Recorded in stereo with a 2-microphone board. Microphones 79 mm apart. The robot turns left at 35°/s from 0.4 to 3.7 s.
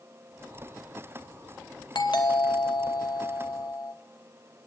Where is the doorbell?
115° left, 3 m; by 3.9 s 55° left, 3 m.